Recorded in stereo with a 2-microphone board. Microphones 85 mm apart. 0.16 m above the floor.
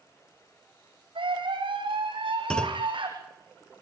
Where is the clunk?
10° left (ahead or behind), 1.0 m.